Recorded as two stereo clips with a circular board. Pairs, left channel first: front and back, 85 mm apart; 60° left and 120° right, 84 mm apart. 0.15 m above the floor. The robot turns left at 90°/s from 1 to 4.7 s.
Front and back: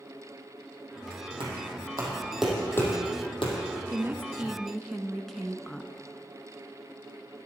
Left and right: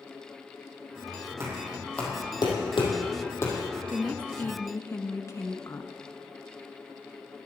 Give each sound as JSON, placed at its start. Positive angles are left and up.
{"t": 1.4, "sound": "knocking", "azimuth_deg": -175, "distance_m": 4.0}
{"t": 3.9, "sound": "a woman speaking", "azimuth_deg": 155, "distance_m": 1.3}